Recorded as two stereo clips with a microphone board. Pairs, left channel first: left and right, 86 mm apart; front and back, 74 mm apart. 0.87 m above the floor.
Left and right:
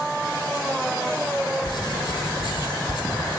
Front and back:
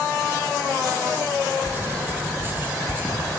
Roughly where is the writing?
Behind left.